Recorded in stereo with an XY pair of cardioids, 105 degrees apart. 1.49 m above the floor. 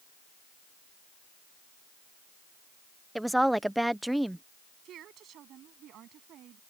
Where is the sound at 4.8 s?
70° right.